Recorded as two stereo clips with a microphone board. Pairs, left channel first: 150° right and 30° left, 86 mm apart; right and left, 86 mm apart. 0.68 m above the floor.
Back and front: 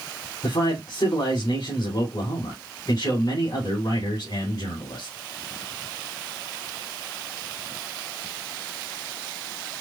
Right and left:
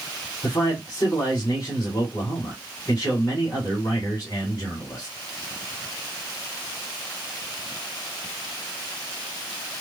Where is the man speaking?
135° right, 3 m.